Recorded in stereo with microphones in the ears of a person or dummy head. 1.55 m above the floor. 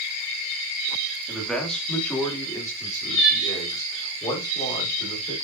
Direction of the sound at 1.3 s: Centre (ahead or behind).